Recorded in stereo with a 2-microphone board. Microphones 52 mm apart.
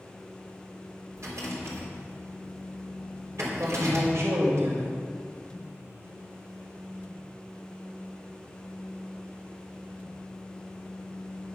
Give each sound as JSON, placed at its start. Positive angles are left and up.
{"t": 1.2, "sound": "a rattle", "side_deg": -70, "distance_m": 3.5}
{"t": 3.5, "sound": "a man speaking", "side_deg": -65, "distance_m": 2.5}